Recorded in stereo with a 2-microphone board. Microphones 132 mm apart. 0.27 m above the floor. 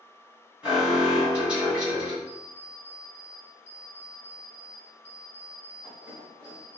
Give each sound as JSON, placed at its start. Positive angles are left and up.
{"t": 0.6, "sound": "an alarm", "side_deg": -10, "distance_m": 1.9}
{"t": 2.3, "sound": "an alarm clock", "side_deg": -15, "distance_m": 1.5}